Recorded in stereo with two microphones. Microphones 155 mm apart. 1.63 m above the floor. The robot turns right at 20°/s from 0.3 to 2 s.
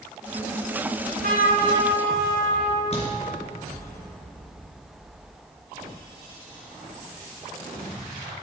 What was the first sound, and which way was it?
A trumpet, 80° right.